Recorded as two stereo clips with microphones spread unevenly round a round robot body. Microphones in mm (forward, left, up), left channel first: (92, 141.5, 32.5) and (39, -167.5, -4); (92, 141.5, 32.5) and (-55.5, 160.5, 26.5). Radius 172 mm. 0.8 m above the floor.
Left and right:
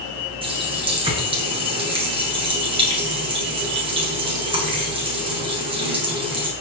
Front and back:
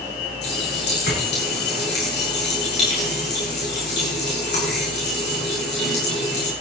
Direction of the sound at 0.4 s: 25° right.